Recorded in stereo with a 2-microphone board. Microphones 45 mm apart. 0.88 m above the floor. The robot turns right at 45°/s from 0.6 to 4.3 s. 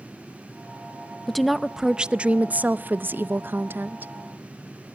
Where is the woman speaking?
170° left, 0.5 m; by 4.1 s 60° right, 0.5 m.